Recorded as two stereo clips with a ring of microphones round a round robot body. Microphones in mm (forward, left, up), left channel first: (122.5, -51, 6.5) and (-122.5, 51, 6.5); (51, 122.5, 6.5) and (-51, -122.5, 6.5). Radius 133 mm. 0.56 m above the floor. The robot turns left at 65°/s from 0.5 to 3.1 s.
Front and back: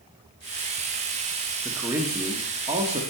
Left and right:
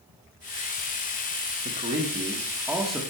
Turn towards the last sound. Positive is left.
turn(degrees=145)